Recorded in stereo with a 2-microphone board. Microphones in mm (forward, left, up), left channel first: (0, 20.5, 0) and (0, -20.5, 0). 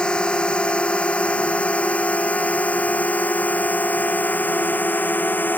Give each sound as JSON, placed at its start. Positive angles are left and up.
{"t": 0.0, "sound": "a drone", "side_deg": 25}